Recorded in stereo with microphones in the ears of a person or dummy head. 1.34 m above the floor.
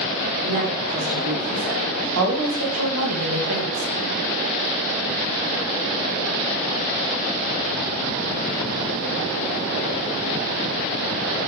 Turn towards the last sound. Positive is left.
turn(degrees=-80)